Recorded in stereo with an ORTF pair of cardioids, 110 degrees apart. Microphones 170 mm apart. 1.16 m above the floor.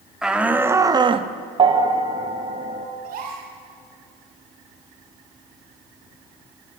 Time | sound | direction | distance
0.2 | a shout | 5° right | 2.5 m
1.6 | a bell | 30° right | 2.5 m
3.0 | a gasp | 60° right | 5.5 m